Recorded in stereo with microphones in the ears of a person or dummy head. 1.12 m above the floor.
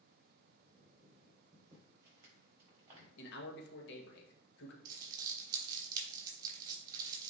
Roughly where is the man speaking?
Left.